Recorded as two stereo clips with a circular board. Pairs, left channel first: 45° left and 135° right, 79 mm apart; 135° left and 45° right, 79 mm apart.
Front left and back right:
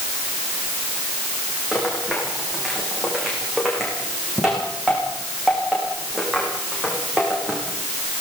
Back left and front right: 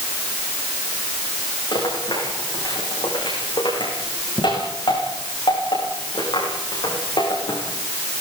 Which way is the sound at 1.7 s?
140° left.